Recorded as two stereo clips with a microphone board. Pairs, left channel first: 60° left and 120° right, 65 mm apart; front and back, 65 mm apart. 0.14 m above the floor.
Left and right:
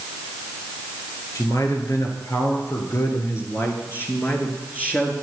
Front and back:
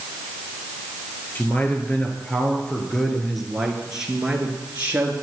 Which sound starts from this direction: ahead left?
A man speaking, at 1.4 s.